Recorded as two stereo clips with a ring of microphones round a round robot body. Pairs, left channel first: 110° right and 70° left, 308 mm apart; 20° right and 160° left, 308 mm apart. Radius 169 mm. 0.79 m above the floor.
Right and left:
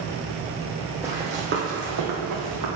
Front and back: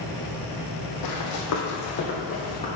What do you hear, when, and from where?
1.0 s running footsteps: 15° right, 1.4 m; by 2.7 s 50° left, 2 m